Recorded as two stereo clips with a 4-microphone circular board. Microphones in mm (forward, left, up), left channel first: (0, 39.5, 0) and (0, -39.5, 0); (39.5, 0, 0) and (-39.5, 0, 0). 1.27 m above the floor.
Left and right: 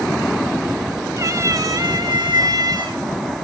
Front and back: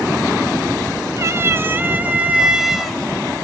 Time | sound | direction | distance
1.2 | a cat meowing | 135° right | 1.4 m